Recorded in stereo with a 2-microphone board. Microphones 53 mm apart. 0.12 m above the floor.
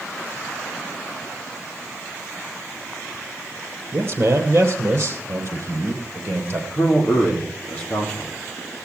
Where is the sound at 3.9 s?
45° right (ahead or behind), 3 m.